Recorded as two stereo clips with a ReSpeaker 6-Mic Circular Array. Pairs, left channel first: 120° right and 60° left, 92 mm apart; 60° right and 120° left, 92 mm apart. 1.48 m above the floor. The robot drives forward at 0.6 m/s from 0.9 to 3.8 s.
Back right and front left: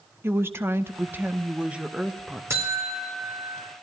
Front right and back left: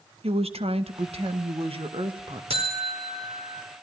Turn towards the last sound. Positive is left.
turn(degrees=130)